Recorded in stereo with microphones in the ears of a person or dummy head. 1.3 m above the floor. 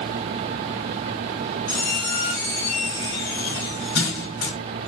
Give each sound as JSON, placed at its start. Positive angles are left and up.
{"t": 1.7, "sound": "a squeak", "side_deg": 55, "distance_m": 1.8}